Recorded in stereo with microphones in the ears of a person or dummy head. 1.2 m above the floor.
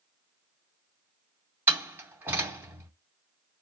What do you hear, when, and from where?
1.7 s a door slam: 10° right (ahead or behind), 2.5 m